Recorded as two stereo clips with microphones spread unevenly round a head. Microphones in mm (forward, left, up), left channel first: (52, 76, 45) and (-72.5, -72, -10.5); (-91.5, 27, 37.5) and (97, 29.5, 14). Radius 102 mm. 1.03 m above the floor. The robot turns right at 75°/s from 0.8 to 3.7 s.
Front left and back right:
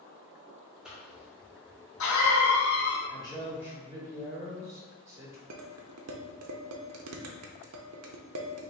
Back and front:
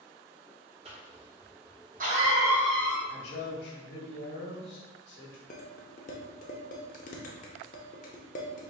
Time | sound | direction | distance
0.8 | a cough | 50° right | 1.4 m
3.1 | a man speaking | 115° left | 1.7 m
5.5 | dishes clattering | 130° right | 0.6 m